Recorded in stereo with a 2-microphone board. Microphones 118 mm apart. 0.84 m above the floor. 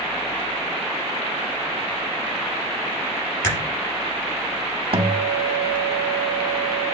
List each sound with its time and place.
3.4 s a crack: 25° left (ahead or behind), 4.5 m
4.9 s a guitar: 50° right (ahead or behind), 0.7 m